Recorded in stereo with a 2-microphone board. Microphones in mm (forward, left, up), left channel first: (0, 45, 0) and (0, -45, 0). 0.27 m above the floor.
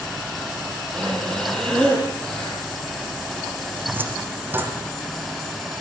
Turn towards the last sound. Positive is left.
turn(degrees=-25)  # may be behind; listen again after turning